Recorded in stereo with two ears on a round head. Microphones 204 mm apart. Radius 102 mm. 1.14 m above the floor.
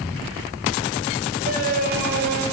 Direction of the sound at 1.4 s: 35° right (ahead or behind).